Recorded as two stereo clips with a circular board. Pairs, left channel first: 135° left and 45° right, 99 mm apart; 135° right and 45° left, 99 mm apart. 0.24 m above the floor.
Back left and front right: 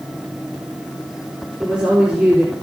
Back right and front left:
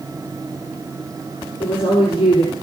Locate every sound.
1.6 s a woman speaking: 120° right, 4.5 m